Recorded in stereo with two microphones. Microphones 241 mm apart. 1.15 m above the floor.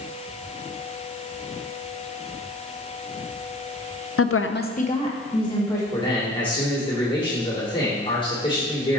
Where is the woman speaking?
65° left (ahead or behind), 0.5 m; by 5.8 s 15° left (ahead or behind), 2 m.